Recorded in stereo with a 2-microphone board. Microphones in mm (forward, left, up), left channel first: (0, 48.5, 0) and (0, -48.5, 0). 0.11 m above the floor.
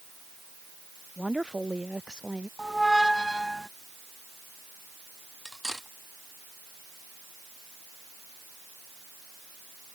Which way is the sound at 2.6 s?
Centre (ahead or behind).